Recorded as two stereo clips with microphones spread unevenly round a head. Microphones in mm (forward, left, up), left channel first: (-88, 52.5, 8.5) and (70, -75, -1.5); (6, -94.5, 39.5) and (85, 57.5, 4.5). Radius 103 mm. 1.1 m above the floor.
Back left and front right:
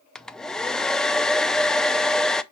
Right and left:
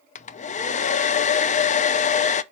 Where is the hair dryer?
130° right, 0.5 m.